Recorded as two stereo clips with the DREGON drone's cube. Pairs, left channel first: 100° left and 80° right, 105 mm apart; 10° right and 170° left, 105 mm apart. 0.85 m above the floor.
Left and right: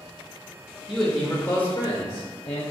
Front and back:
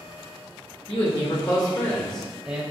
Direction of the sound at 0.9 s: 10° left.